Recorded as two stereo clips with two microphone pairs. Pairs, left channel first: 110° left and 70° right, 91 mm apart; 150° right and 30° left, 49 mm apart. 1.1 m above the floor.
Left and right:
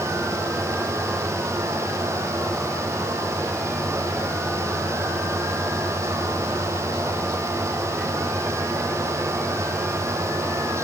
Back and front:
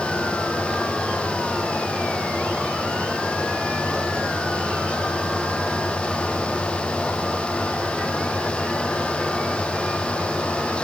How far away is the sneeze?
No sneeze in this recording.